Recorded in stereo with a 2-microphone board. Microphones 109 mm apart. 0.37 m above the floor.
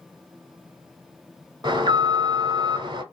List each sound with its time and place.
1.6 s an alarm: 40° right (ahead or behind), 0.8 m